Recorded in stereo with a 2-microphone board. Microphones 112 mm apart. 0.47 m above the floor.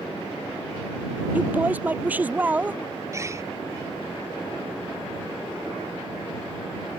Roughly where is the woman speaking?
Centre.